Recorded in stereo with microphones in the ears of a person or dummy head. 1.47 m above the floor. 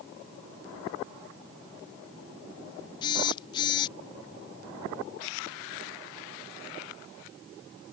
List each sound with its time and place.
3.0 s a phone buzzing: 30° left (ahead or behind)